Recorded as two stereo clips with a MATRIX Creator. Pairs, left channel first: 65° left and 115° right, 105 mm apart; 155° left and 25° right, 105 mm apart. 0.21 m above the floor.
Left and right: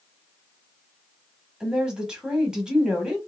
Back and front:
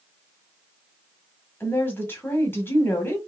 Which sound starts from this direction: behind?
A woman speaking, at 1.6 s.